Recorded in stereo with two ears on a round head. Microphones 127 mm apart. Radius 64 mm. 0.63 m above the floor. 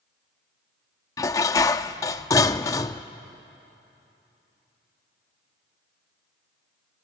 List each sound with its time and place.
1.2 s dishes clattering: 20° left (ahead or behind), 0.6 m